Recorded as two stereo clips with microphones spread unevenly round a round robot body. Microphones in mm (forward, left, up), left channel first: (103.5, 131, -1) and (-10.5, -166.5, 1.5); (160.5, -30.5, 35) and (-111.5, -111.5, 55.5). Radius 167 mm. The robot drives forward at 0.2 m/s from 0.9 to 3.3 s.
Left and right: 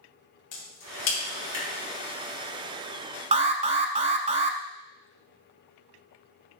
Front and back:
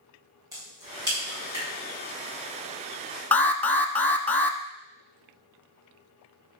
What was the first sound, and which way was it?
A crack, 115° left.